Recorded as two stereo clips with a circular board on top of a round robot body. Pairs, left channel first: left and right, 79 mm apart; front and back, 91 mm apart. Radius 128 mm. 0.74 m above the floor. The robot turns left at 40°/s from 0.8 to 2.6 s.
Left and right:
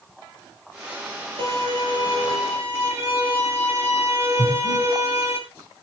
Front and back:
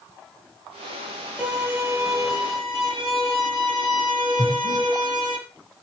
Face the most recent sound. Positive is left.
turn(degrees=-140)